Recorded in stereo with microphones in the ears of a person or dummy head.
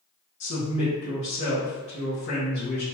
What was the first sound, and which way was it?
A woman speaking, 60° left (ahead or behind).